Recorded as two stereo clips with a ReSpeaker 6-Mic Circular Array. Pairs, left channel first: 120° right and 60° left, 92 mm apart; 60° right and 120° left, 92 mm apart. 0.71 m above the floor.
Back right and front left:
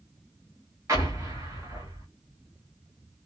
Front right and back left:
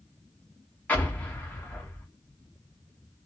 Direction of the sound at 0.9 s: 10° left.